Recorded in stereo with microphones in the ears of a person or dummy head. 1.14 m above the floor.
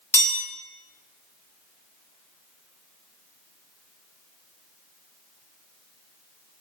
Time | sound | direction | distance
0.1 | a chime | 20° left (ahead or behind) | 1.0 m